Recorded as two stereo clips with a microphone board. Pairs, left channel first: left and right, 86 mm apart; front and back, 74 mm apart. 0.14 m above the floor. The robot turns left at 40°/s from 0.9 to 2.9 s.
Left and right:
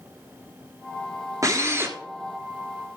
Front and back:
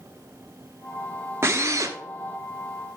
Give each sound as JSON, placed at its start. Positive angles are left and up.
{"t": 1.4, "sound": "a drill", "azimuth_deg": -130, "distance_m": 1.2}